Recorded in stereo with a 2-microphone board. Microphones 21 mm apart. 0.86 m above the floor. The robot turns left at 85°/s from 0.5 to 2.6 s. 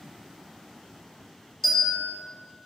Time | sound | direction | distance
1.6 | a bell | 165° left | 1.3 m